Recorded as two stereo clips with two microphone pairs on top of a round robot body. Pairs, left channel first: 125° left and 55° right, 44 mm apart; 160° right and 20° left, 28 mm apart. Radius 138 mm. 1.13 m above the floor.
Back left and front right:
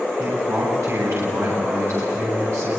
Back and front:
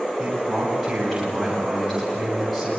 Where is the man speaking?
70° right, 8.5 m; by 2.7 s 75° right, 9.5 m.